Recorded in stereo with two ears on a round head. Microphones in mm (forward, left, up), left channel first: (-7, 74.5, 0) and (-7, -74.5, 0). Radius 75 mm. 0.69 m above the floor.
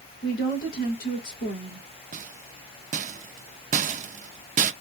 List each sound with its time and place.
0.2 s a woman speaking: 55° left (ahead or behind), 2.5 m
2.1 s a rattle: 50° right (ahead or behind), 0.5 m